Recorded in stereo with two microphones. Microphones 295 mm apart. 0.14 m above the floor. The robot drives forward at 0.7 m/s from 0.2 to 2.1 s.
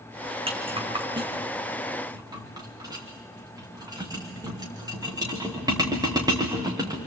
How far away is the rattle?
About 2.5 m.